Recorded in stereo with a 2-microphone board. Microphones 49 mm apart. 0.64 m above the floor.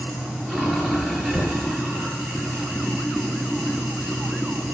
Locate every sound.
0.0 s running water: centre (ahead or behind), 10 m
1.3 s knocking: 45° left (ahead or behind), 6.5 m